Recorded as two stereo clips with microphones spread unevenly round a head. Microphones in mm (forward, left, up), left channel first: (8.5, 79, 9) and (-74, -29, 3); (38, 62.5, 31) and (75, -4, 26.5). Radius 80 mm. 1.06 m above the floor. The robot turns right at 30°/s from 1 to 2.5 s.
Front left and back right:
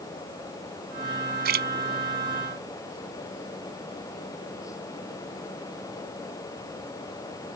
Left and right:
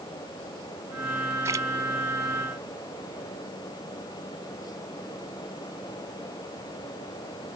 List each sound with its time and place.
1.4 s a splash: 135° right; by 1.7 s 125° right